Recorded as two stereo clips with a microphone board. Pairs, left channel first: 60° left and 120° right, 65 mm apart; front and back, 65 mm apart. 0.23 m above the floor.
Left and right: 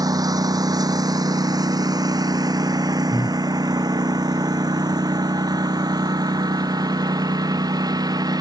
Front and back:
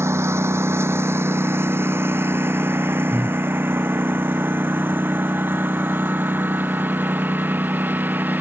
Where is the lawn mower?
135° right; by 8.4 s 120° right.